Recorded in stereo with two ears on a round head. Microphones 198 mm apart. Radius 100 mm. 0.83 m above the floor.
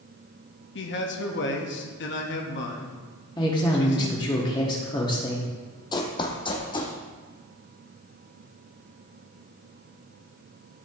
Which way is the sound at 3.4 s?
20° left (ahead or behind).